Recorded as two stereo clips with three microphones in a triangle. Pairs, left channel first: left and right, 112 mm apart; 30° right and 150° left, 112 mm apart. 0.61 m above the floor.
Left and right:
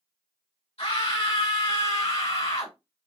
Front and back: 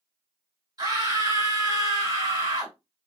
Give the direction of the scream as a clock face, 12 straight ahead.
9 o'clock.